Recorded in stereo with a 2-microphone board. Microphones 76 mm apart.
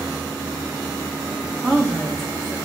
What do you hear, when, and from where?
1.6 s a woman speaking: 5° left (ahead or behind), 1.5 m